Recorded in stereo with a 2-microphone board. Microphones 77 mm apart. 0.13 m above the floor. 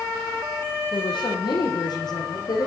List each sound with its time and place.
0.9 s a woman speaking: 70° left (ahead or behind), 6 m; by 2.7 s 60° left (ahead or behind), 6 m